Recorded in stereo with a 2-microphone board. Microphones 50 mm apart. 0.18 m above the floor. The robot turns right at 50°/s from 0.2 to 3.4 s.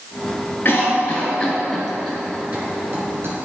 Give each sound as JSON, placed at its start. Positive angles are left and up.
{"t": 0.7, "sound": "a cough", "side_deg": 40, "distance_m": 2.0}